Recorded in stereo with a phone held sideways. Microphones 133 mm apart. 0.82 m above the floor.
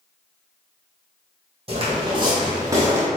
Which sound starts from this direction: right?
Footsteps, at 1.7 s.